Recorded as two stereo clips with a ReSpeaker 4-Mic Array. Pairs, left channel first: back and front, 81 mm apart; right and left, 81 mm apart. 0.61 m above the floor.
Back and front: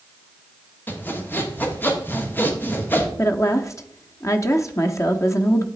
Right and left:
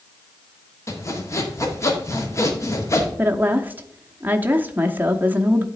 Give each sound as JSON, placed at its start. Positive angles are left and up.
{"t": 0.9, "sound": "sawing", "azimuth_deg": -125, "distance_m": 1.4}
{"t": 3.2, "sound": "a woman speaking", "azimuth_deg": 150, "distance_m": 0.8}